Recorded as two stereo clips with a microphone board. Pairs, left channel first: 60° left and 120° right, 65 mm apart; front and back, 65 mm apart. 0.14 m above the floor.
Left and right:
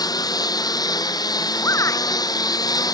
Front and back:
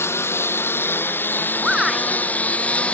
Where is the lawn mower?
50° left; by 3.0 s 70° left.